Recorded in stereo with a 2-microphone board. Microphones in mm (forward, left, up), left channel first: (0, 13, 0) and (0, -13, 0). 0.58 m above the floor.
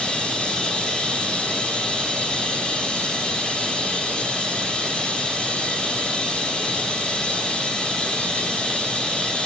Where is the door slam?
No door slam in this recording.